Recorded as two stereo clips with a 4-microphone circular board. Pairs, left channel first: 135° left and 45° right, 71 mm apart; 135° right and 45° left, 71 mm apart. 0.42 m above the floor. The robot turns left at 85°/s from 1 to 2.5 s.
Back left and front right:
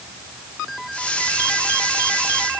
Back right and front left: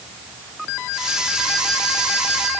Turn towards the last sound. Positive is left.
No sound to turn to.